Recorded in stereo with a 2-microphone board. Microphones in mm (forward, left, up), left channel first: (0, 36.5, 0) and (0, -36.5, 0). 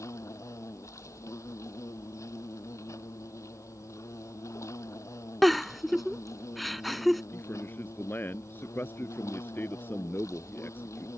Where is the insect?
45° left (ahead or behind).